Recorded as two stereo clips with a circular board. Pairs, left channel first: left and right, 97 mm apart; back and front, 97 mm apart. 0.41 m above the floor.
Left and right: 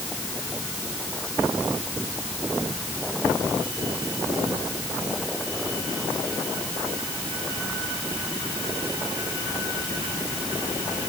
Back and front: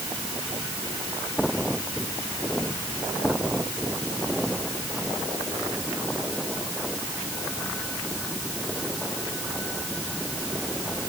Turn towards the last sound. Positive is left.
No sound to turn to.